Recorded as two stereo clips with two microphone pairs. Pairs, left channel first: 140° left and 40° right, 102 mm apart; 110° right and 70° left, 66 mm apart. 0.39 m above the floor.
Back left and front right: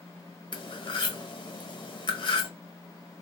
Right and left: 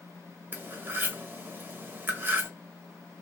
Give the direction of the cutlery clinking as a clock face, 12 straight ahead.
8 o'clock.